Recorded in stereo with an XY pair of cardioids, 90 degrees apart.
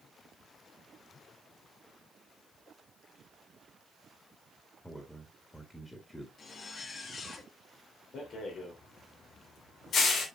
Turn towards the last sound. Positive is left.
turn(degrees=70)